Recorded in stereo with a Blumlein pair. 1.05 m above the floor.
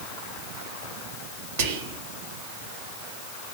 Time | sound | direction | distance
1.6 | whispering | 55° right | 0.8 m